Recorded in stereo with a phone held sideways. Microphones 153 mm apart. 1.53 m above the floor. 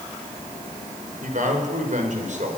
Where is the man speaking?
65° right (ahead or behind), 5.5 m; by 2.6 s 55° right (ahead or behind), 5.5 m.